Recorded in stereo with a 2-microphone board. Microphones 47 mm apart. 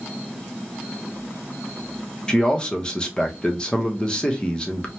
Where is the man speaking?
15° left (ahead or behind), 0.8 m.